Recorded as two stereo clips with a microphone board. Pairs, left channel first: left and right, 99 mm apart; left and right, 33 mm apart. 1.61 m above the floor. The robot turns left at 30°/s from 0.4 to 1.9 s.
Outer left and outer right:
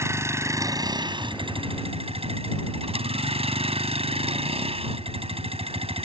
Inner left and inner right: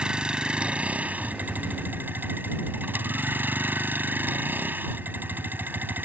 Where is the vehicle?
25° right; by 6.0 s 70° right.